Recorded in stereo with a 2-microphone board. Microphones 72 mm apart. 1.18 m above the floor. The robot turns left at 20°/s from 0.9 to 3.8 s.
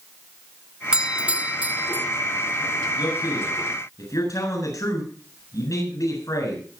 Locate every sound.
0.9 s a doorbell: 10° right (ahead or behind), 0.5 m; by 2.1 s 30° right (ahead or behind), 0.5 m
3.0 s a man speaking: 70° left (ahead or behind), 8.5 m; by 6.6 s 50° left (ahead or behind), 8.5 m